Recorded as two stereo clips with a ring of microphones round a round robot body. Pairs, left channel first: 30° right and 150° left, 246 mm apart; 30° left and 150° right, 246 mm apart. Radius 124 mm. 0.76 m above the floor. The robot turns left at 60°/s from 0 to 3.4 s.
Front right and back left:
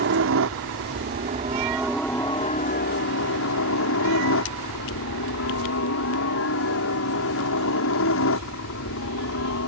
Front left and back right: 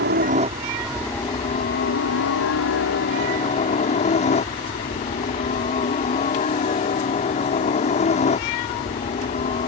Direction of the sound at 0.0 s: Straight behind.